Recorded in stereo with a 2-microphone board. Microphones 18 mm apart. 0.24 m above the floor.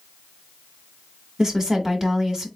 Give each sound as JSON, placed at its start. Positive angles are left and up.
{"t": 1.4, "sound": "a woman speaking", "side_deg": -30, "distance_m": 1.6}